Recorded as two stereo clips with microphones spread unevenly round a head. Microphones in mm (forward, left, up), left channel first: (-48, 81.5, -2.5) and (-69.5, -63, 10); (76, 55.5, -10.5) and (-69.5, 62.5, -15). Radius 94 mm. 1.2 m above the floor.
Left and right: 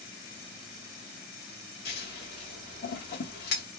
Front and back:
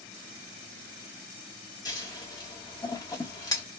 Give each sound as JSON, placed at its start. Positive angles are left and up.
{"t": 1.9, "sound": "scissors", "azimuth_deg": 65, "distance_m": 1.8}